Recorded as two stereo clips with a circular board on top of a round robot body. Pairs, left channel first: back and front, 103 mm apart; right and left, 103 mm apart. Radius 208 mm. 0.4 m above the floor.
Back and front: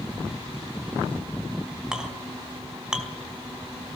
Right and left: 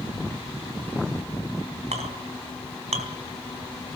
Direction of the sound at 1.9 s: 85° left.